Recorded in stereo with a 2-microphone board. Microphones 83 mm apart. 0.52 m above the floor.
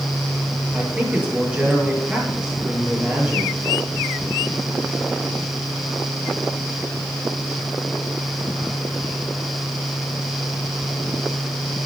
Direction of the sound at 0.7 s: 15° right (ahead or behind).